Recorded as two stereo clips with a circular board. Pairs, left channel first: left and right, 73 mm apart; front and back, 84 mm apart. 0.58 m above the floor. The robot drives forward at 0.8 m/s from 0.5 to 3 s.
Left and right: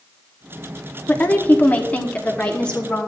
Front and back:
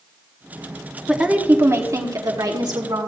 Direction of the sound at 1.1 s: 110° left.